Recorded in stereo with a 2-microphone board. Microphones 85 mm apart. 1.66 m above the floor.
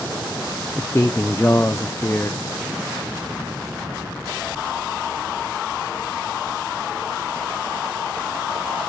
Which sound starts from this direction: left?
A man speaking, at 0.8 s.